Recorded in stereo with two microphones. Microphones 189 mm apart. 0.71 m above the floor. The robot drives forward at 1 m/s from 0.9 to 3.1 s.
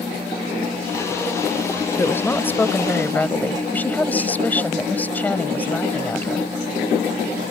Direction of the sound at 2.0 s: 10° left (ahead or behind).